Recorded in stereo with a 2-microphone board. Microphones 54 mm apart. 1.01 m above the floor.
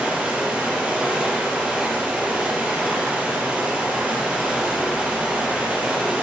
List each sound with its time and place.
0.0 s running water: 25° right (ahead or behind), 5 m